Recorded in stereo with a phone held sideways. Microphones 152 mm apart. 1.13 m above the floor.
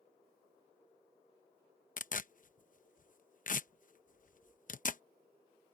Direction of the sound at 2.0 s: 55° left (ahead or behind).